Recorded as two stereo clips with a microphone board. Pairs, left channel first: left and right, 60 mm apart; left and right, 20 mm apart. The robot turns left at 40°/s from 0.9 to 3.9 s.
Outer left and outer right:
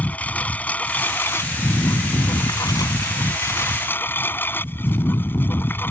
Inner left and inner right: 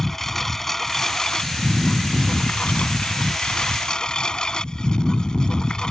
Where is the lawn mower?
155° left; by 5.9 s 35° left.